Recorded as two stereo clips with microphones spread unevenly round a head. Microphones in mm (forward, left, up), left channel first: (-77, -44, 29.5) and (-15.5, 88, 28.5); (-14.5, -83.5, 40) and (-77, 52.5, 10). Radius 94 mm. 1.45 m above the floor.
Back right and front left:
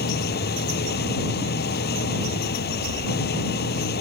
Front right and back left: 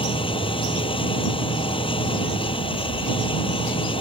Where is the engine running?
120° right.